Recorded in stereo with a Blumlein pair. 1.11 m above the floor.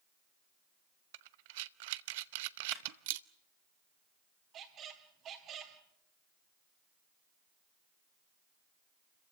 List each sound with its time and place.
1.1 s breathing: 50° right, 0.7 m
2.7 s a clap: 15° right, 2.5 m
4.5 s a squeak: 30° right, 2.5 m